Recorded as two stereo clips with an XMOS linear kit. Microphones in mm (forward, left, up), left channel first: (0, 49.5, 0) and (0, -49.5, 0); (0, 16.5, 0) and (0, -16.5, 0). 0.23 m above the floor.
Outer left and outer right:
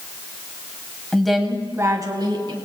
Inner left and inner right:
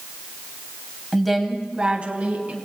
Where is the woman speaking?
10° left (ahead or behind), 1.3 m; by 2.6 s 55° right (ahead or behind), 2.5 m.